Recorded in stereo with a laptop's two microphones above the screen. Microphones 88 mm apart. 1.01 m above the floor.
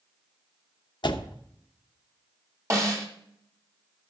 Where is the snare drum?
35° right (ahead or behind), 2.5 m.